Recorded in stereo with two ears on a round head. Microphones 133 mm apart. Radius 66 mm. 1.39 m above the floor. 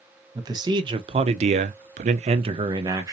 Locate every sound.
0.3 s a man speaking: 25° right (ahead or behind), 1.0 m; by 3.1 s 20° right (ahead or behind), 0.8 m